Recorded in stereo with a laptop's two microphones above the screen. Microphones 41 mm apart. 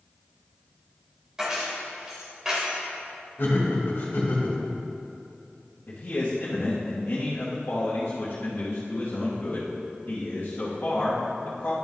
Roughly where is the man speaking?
Left.